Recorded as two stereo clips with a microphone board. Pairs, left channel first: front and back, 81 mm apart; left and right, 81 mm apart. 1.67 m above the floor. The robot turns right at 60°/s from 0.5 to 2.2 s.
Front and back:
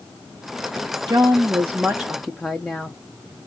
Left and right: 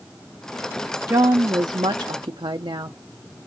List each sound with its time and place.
1.1 s a woman speaking: 145° right, 0.6 m; by 3.0 s 80° right, 0.6 m